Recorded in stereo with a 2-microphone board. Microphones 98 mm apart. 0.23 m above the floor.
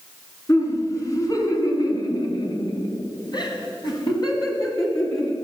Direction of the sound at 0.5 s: 30° left (ahead or behind).